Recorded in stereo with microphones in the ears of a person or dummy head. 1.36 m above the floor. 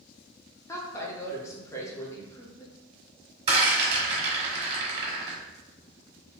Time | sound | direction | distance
0.7 | a woman speaking | 15° left (ahead or behind) | 0.7 m
3.5 | a rattle | 35° right (ahead or behind) | 1.2 m